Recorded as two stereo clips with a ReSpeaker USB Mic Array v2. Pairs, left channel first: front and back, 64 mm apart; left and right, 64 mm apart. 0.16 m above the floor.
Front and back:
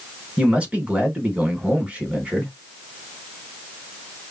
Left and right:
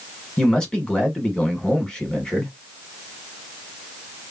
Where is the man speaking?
145° left, 1.0 m.